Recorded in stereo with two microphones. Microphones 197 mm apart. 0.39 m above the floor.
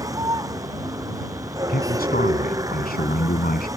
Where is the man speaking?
50° left (ahead or behind).